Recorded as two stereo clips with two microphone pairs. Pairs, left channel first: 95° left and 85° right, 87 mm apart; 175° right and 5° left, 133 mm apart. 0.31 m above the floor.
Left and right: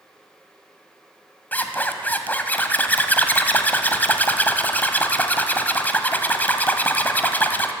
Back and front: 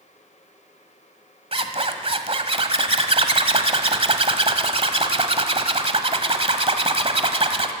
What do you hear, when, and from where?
1.5 s a zipper: 30° left, 1.4 m